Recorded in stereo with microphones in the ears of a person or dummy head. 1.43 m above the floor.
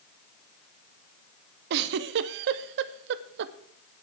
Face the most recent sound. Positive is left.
turn(degrees=-65)  # may be behind; listen again after turning